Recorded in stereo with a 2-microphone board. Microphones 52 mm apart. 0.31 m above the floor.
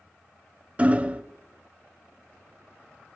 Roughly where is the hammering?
Right.